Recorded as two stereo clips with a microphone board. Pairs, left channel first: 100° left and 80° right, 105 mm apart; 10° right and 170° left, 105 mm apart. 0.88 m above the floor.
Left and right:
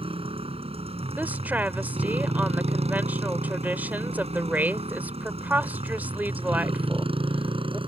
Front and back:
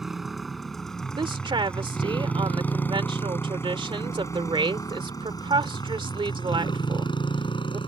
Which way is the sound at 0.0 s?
105° right.